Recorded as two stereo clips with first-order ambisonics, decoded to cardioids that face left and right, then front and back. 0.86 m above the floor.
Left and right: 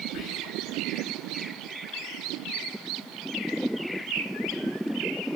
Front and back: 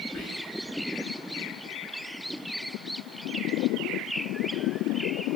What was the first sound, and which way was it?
Whispering, 65° left.